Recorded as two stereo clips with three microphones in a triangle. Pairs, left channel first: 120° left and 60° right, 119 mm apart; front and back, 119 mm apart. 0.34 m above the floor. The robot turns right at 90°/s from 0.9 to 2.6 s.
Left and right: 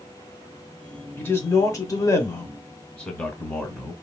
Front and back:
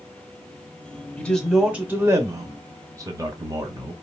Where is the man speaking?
60° left, 0.9 m; by 3.9 s 170° right, 0.9 m.